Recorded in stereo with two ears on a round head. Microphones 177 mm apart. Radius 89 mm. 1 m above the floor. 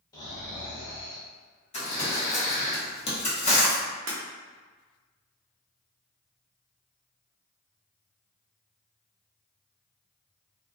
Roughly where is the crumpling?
Left.